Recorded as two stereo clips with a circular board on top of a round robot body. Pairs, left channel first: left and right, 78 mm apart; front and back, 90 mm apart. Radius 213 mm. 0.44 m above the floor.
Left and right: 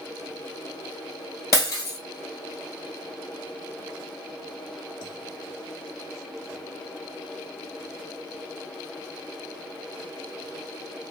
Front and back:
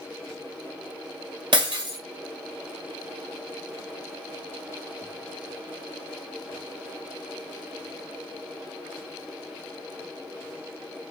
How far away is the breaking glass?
About 1.6 m.